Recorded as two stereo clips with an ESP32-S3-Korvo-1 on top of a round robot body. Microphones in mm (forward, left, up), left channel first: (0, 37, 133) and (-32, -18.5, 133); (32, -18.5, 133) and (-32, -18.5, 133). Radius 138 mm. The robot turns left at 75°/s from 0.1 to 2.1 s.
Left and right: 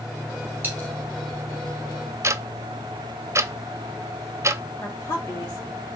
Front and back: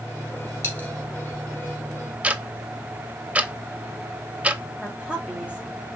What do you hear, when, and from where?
0.6 s a dropped coin: 55° right, 1.5 m; by 0.9 s 75° right, 1.5 m
2.2 s ticking: 120° right, 0.6 m
4.8 s a woman speaking: 105° left, 2 m